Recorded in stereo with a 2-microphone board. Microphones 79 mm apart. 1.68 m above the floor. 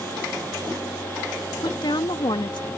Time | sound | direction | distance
1.6 | a woman speaking | 75° left (ahead or behind) | ?